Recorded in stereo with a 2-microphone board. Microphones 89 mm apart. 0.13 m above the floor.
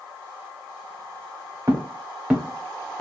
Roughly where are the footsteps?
Right.